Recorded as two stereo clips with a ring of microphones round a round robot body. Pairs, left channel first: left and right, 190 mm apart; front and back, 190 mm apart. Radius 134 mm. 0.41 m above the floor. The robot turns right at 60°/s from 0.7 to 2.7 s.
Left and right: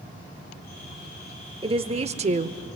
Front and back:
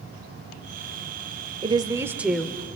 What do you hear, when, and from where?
1.6 s a woman speaking: 135° right, 0.9 m; by 2.7 s 75° right, 0.9 m